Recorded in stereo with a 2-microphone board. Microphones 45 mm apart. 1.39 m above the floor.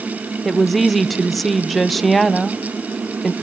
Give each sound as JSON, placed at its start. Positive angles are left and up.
{"t": 0.5, "sound": "a woman speaking", "side_deg": 0, "distance_m": 0.9}